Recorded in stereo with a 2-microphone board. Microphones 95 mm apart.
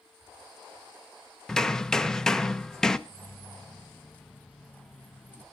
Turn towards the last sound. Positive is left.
turn(degrees=15)  # may be behind; listen again after turning